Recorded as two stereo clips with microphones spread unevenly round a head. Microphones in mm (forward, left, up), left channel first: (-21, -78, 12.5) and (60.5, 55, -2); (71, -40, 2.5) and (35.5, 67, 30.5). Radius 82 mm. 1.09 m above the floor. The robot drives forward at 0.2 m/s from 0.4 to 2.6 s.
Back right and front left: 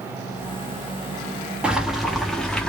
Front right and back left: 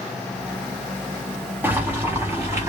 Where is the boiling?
145° left, 0.6 m; by 2.7 s 160° left, 0.7 m.